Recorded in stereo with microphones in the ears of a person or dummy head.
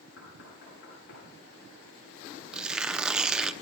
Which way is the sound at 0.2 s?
65° left (ahead or behind).